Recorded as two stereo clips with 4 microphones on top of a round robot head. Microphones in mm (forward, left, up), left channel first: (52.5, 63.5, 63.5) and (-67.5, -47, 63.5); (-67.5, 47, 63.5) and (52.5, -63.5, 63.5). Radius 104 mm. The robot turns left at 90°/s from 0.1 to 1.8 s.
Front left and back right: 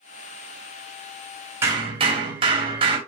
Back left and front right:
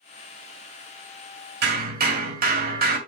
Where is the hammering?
60° right, 2.5 m; by 3.0 s 75° right, 2.5 m.